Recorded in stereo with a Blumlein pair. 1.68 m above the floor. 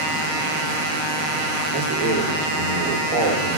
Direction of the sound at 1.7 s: 15° right.